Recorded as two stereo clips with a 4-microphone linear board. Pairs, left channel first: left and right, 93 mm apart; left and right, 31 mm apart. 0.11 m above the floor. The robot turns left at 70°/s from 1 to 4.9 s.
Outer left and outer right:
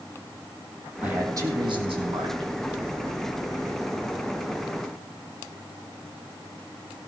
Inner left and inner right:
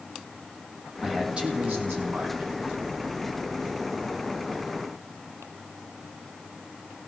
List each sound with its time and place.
1.0 s a man speaking: 15° right, 4 m; by 2.5 s 120° right, 4 m